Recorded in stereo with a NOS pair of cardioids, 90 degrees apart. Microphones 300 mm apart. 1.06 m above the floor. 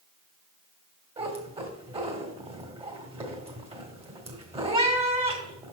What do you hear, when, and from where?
1.2 s a cat meowing: 20° right, 1.7 m